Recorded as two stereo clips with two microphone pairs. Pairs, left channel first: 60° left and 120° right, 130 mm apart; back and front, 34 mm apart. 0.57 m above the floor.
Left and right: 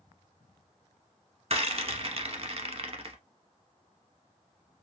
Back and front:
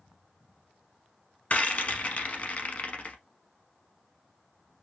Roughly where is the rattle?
Behind right.